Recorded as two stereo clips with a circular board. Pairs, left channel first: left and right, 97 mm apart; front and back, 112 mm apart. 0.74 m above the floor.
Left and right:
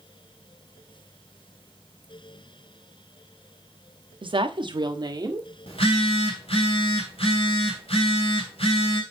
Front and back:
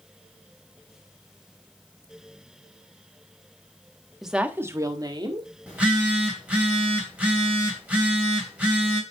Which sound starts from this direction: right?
A woman speaking, at 4.2 s.